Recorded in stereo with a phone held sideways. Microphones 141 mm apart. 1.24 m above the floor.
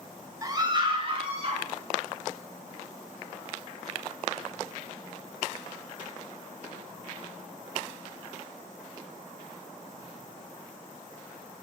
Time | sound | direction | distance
0.4 | a scream | 25° right (ahead or behind) | 1.8 m